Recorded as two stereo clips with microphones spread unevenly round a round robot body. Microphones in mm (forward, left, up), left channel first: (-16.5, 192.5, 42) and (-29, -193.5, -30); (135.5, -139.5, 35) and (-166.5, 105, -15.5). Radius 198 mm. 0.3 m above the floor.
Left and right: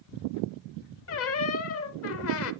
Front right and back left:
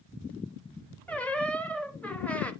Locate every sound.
1.1 s a squeak: 60° left, 0.6 m